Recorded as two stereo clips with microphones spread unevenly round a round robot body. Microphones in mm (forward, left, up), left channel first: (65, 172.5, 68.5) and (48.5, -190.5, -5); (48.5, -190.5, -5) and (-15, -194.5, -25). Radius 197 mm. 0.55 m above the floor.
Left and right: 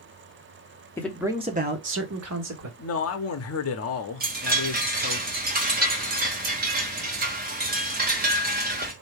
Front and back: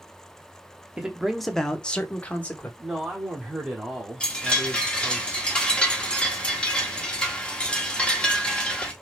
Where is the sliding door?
I don't hear a sliding door.